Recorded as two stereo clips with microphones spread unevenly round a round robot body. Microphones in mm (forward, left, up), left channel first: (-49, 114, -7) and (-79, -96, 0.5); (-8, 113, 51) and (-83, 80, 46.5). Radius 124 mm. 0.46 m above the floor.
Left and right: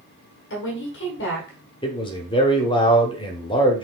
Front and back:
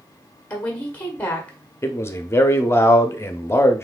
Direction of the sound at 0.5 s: 95° left.